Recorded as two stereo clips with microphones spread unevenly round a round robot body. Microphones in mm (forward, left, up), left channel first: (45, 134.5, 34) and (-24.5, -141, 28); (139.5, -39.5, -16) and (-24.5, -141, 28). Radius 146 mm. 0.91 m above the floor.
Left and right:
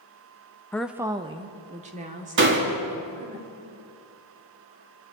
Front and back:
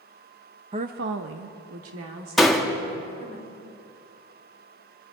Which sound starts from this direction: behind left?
A woman speaking, at 0.7 s.